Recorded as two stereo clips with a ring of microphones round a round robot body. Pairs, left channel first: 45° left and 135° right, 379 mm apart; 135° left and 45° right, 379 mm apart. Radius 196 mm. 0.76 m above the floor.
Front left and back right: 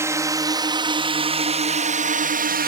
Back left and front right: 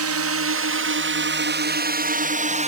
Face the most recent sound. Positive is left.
turn(degrees=-100)